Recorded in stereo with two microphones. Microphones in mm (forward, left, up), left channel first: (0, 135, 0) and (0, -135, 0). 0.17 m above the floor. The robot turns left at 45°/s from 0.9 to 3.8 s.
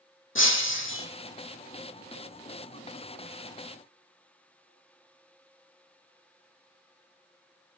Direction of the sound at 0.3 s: 50° left (ahead or behind).